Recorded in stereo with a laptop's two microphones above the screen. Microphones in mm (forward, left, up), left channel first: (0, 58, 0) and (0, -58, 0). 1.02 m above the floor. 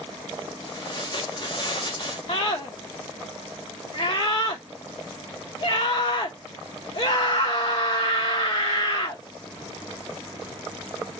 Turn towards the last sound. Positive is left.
turn(degrees=60)  # may be behind; listen again after turning